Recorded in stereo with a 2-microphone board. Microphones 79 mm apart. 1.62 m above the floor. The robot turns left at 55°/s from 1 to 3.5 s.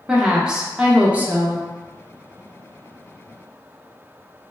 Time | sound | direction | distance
0.1 | a woman speaking | 10° right | 0.5 m